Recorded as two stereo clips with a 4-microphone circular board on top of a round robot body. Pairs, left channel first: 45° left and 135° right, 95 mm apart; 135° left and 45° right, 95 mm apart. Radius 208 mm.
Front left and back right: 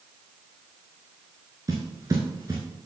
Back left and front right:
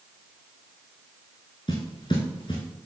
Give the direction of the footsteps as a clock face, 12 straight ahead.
6 o'clock.